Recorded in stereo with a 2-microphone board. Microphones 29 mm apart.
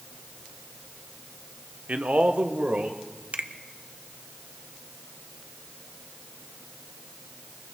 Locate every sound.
1.9 s a man speaking: 50° right (ahead or behind), 0.9 m; by 3.0 s 55° right (ahead or behind), 1.8 m
3.3 s a finger snap: 60° right (ahead or behind), 0.7 m